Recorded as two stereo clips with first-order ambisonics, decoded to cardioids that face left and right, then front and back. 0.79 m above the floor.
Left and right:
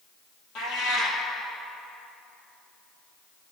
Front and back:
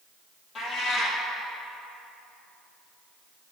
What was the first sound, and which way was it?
A cat meowing, 65° left.